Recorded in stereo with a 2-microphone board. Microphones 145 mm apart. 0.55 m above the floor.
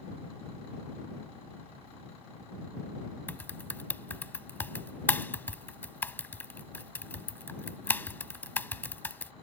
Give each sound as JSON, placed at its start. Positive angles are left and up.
{"t": 3.3, "sound": "typing on a keyboard", "side_deg": 15}